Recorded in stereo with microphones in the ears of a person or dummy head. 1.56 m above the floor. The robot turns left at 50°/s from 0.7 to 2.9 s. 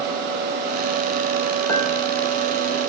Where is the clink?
15° left (ahead or behind), 3.5 m; by 1.9 s 25° left (ahead or behind), 3.5 m.